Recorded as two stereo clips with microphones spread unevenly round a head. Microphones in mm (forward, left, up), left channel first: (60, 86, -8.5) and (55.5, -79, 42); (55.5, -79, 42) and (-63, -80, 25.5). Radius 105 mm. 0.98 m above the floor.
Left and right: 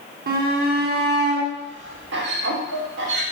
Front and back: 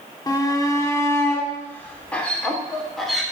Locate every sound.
0.3 s a shout: 60° right, 3 m; by 3.2 s 90° right, 3.5 m